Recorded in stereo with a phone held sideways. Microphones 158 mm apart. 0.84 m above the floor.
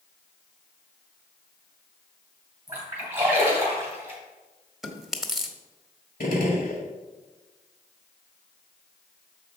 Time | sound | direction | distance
2.7 | a splash | 15° right (ahead or behind) | 3 m
4.8 | chewing | centre (ahead or behind) | 0.8 m
6.2 | a gunshot | 70° left (ahead or behind) | 1.6 m